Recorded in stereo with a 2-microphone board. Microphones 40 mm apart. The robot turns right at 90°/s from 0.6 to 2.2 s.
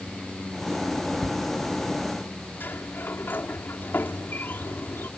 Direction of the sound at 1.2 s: 10° left (ahead or behind).